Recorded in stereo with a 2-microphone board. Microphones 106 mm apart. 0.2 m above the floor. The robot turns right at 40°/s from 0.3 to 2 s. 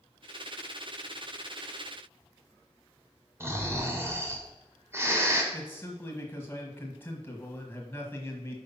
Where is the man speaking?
20° left (ahead or behind), 1.2 m.